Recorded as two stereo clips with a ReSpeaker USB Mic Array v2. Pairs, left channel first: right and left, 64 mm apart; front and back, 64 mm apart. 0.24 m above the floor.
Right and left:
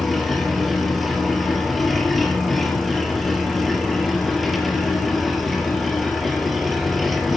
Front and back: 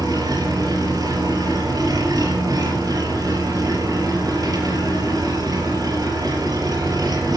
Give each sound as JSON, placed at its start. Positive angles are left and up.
{"t": 0.0, "sound": "an engine running", "azimuth_deg": 180, "distance_m": 5.0}